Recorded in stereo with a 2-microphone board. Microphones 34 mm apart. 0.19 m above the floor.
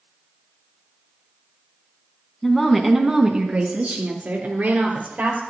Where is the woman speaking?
15° left (ahead or behind), 1.5 m; by 5.4 s 65° right (ahead or behind), 3.5 m.